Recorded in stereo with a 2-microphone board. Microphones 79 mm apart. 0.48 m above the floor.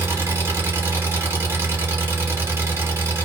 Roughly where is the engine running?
Right.